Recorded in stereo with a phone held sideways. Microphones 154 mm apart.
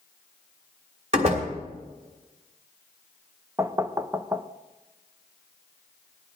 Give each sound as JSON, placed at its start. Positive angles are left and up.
{"t": 1.1, "sound": "a door slam", "side_deg": -45, "distance_m": 3.0}
{"t": 3.6, "sound": "knocking", "side_deg": -20, "distance_m": 0.6}